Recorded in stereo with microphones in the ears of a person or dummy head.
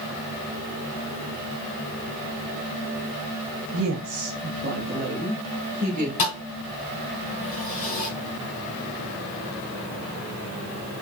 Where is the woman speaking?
75° right (ahead or behind), 0.7 m; by 6.1 s 35° right (ahead or behind), 2 m.